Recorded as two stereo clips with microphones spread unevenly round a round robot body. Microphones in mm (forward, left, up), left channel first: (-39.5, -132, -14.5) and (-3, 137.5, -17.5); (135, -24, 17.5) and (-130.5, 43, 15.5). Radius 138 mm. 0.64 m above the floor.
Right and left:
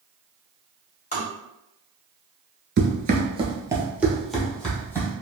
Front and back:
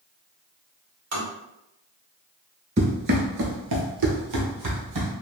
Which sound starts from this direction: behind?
Tapping, at 1.1 s.